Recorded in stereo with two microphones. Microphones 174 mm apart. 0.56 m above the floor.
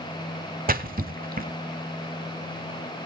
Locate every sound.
0.7 s a splash: 55° right (ahead or behind), 1.0 m